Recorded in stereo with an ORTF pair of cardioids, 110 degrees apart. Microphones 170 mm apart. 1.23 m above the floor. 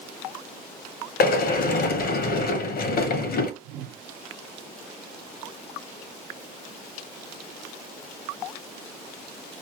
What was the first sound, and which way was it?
A sliding door, 65° left.